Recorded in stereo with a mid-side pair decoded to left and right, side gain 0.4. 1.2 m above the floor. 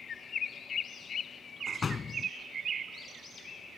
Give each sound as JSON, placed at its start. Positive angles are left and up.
{"t": 1.7, "sound": "a door slam", "azimuth_deg": 40}